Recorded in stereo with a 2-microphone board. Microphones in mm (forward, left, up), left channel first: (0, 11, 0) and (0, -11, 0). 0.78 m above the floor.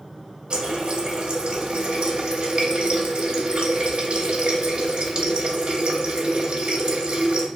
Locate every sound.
0.5 s a running tap: 55° right (ahead or behind), 0.5 m